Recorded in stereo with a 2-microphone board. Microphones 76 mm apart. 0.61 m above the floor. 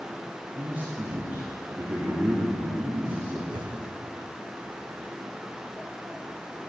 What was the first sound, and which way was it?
A man speaking, 20° right (ahead or behind).